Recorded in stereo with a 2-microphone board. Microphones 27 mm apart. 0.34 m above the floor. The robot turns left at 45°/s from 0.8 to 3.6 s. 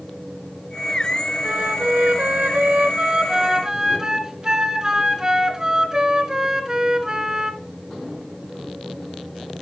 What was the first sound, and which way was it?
A flute, 60° right.